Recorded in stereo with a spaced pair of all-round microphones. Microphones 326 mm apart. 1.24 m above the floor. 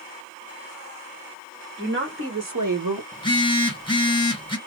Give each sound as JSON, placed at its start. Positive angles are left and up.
{"t": 1.8, "sound": "a woman speaking", "side_deg": -30, "distance_m": 2.0}
{"t": 3.1, "sound": "a phone buzzing", "side_deg": 15, "distance_m": 1.3}